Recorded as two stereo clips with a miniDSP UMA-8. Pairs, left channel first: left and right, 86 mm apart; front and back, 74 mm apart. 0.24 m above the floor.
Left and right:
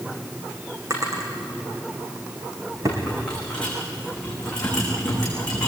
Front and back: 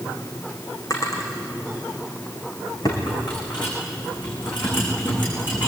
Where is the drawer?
40° right, 5.5 m.